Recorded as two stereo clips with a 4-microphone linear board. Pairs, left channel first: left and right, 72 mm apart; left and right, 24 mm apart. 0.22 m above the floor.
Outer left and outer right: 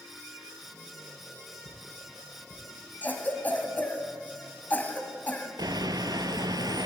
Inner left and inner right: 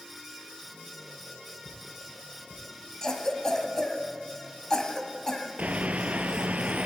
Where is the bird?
75° right (ahead or behind), 0.6 m.